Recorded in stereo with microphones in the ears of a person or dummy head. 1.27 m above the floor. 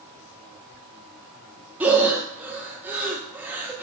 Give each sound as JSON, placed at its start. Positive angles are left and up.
{"t": 1.8, "sound": "breathing", "side_deg": -10, "distance_m": 0.5}